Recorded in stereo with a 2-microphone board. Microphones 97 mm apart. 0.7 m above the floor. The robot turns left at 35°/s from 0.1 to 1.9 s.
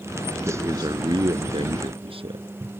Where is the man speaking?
30° right; by 2.5 s 80° right.